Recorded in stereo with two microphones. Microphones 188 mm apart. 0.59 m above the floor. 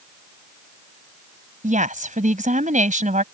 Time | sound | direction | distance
1.6 | a woman speaking | 45° right (ahead or behind) | ?